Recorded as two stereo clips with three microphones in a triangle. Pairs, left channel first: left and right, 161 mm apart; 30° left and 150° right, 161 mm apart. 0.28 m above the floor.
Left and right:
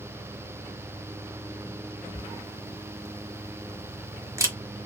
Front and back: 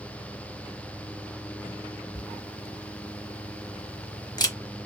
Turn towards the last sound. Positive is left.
turn(degrees=-25)